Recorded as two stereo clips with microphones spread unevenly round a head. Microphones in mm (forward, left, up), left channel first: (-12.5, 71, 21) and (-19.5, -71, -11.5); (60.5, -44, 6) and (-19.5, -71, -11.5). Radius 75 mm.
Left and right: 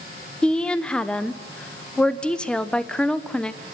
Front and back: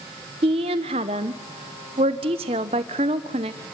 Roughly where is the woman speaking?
Behind.